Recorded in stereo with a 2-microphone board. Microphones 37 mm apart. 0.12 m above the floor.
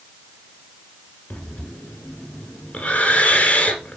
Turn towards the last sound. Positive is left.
turn(degrees=35)  # may be behind; listen again after turning